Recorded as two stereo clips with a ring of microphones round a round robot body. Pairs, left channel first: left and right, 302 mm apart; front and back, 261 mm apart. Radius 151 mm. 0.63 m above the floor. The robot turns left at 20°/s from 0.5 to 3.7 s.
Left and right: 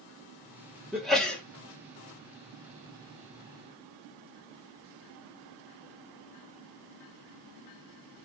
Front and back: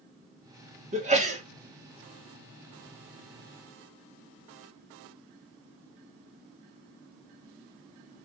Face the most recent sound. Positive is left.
turn(degrees=125)